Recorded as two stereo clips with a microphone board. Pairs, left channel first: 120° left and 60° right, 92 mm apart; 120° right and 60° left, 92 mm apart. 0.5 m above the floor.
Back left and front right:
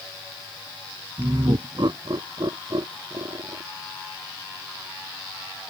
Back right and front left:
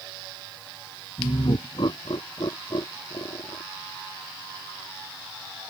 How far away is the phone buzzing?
No phone buzzing in this recording.